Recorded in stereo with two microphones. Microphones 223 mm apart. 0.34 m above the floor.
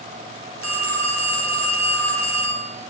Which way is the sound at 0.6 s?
80° left.